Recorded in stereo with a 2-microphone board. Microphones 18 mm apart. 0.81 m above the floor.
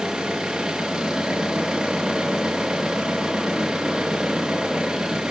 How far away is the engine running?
About 4.5 m.